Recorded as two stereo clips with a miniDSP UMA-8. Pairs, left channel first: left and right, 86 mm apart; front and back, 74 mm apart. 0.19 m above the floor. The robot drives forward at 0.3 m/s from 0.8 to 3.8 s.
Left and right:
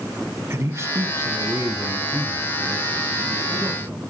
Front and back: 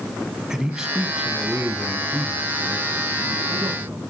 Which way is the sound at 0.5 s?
105° right.